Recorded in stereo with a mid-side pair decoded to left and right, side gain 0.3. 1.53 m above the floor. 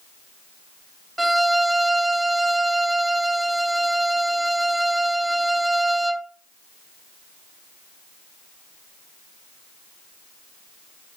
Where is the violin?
20° right, 0.7 m.